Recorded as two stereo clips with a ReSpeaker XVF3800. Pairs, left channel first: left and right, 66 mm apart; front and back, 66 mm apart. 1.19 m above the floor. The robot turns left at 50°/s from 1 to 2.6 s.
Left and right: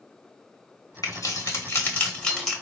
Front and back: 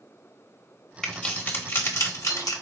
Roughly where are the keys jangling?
Left.